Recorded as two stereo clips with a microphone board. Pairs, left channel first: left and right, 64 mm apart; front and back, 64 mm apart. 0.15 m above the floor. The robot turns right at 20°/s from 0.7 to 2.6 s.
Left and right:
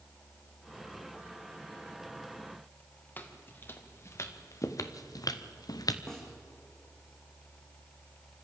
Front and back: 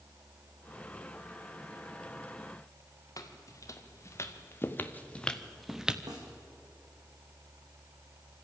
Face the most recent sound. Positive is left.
turn(degrees=170)